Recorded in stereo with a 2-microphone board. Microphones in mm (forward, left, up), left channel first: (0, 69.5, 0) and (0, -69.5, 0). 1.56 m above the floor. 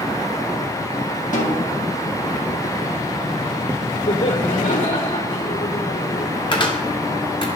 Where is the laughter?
90° left, 4 m.